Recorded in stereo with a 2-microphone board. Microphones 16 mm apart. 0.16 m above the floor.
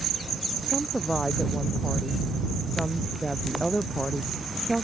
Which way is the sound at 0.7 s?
20° left (ahead or behind).